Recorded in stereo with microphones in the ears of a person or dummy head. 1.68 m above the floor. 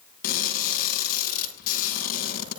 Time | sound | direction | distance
0.2 | crushing | 60° left (ahead or behind) | 8.5 m